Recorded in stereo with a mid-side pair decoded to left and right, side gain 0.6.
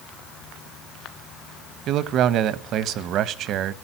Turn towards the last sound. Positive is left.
turn(degrees=-60)